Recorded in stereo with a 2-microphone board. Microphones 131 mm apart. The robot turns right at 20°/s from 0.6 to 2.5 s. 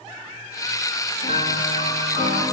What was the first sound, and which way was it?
A piano, 60° left (ahead or behind).